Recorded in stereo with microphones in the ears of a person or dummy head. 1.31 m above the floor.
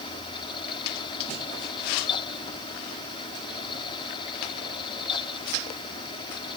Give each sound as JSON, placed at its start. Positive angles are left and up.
{"t": 0.0, "sound": "a fan", "side_deg": 30}